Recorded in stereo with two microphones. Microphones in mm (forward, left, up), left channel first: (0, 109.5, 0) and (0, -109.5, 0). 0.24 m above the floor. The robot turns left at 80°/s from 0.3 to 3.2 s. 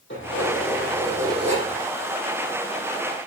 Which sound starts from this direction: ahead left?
Keys jangling, at 0.1 s.